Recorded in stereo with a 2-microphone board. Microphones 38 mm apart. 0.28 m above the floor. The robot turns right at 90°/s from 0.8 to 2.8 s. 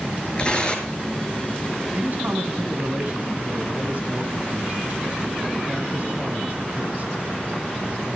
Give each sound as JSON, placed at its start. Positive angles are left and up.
{"t": 0.4, "sound": "tearing paper", "side_deg": 25, "distance_m": 4.5}
{"t": 1.9, "sound": "a man speaking", "azimuth_deg": -135, "distance_m": 2.5}